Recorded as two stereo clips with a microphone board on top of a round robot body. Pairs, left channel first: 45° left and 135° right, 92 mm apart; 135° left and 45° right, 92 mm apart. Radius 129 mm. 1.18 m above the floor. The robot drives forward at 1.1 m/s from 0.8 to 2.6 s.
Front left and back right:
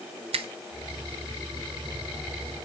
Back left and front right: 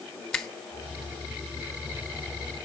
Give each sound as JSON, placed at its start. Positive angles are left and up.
{"t": 0.3, "sound": "a finger snap", "azimuth_deg": -140, "distance_m": 0.9}